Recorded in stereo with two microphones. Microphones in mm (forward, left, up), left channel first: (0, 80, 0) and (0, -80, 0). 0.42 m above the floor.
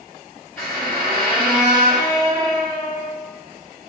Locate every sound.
0.6 s a squeak: 5° left (ahead or behind), 1.6 m